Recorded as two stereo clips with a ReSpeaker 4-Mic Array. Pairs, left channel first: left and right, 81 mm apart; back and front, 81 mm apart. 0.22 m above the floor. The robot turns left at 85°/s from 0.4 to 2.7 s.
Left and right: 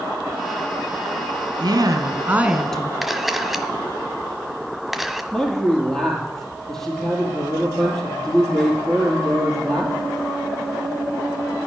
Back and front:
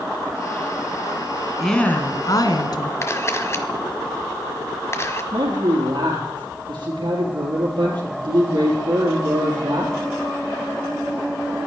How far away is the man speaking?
About 4 m.